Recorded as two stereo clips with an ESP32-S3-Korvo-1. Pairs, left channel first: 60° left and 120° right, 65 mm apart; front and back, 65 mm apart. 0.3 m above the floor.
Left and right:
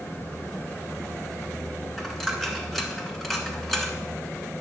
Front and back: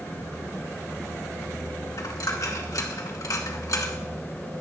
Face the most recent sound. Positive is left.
turn(degrees=-30)